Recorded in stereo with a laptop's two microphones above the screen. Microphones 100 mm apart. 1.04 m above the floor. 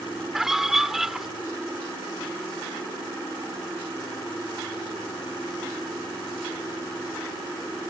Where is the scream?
5° right (ahead or behind).